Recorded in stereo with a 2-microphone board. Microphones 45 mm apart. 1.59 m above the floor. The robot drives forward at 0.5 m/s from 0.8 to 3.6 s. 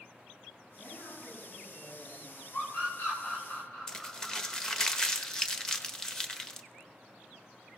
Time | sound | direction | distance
0.8 | a woman speaking | 90° left | 8.5 m
2.5 | a scream | 45° left (ahead or behind) | 3 m
3.9 | crumpling | 10° left (ahead or behind) | 0.9 m